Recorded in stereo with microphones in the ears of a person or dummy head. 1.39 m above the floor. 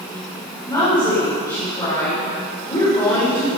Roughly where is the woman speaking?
Left.